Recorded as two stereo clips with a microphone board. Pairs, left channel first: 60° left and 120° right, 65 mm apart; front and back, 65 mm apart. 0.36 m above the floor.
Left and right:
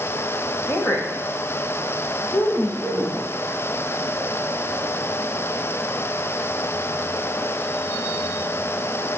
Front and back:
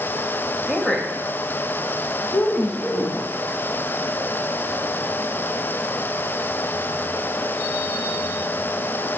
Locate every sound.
0.7 s a woman speaking: 90° left, 1.4 m; by 3.3 s 50° left, 3.5 m